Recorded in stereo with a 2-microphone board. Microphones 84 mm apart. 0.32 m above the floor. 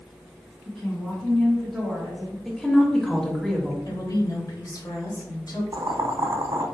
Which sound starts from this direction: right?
Boiling, at 5.7 s.